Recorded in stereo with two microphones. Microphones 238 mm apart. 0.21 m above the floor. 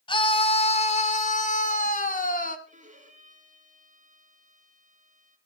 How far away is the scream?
About 1.7 m.